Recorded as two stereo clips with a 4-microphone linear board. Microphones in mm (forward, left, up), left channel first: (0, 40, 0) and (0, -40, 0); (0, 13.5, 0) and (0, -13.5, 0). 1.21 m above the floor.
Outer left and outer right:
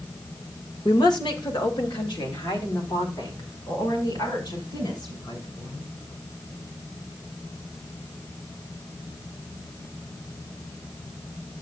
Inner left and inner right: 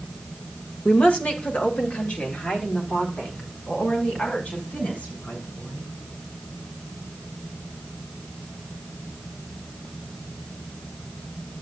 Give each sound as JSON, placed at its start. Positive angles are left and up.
{"t": 0.8, "sound": "a woman speaking", "side_deg": 60, "distance_m": 1.7}